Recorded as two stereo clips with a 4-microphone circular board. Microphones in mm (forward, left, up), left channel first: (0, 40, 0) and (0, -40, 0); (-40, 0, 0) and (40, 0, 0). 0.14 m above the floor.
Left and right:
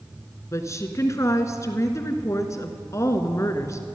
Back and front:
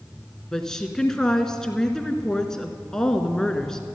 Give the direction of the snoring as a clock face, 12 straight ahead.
I don't hear snoring.